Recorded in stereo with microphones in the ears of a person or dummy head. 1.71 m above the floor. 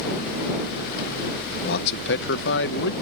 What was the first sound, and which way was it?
A man speaking, 60° left (ahead or behind).